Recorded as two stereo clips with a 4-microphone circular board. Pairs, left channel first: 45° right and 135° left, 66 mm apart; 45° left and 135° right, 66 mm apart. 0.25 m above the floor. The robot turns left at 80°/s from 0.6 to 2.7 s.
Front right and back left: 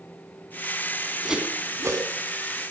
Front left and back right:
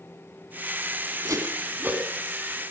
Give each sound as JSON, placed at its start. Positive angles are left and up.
{"t": 1.2, "sound": "a whoosh", "azimuth_deg": -140, "distance_m": 1.7}